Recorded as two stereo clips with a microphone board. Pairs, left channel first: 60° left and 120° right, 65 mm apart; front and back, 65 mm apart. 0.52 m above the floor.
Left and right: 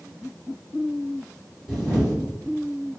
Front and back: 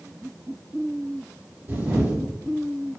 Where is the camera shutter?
150° left, 1.7 m.